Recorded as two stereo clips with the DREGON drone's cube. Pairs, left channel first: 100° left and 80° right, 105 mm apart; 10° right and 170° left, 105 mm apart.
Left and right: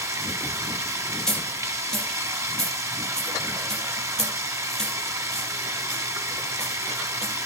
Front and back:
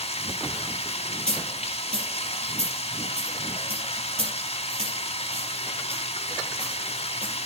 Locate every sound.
0.0 s running water: 20° right, 1.5 m
1.3 s a dropped coin: 175° right, 4.5 m